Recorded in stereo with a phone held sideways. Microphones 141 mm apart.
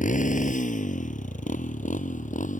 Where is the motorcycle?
70° left (ahead or behind); by 2.6 s 65° left (ahead or behind).